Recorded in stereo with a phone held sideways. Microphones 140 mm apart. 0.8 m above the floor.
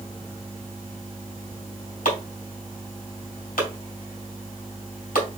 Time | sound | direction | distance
2.0 | chopping | 75° left (ahead or behind) | 2.5 m